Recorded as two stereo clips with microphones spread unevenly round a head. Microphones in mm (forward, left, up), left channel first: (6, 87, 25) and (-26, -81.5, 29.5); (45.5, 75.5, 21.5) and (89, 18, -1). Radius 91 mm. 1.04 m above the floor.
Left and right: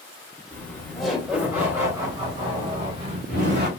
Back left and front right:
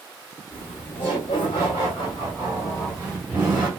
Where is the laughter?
155° left, 1.6 m; by 3.7 s 140° right, 2 m.